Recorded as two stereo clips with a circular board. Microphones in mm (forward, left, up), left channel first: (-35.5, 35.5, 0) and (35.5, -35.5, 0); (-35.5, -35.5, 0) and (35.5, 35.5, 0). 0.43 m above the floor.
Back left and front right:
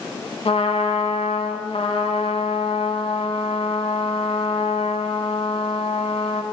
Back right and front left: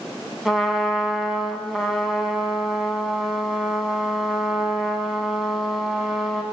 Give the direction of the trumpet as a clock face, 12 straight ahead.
8 o'clock.